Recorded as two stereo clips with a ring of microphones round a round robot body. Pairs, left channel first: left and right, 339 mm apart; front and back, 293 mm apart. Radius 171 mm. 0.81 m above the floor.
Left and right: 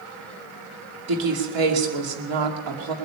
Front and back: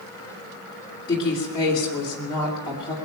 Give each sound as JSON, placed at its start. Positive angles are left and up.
{"t": 1.1, "sound": "a woman speaking", "azimuth_deg": -75, "distance_m": 2.5}